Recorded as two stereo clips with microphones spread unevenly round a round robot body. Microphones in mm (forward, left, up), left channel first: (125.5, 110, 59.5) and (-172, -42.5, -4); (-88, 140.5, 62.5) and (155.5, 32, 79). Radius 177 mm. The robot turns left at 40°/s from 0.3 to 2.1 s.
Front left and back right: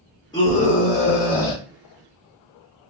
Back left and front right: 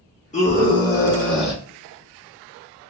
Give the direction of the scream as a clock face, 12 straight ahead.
8 o'clock.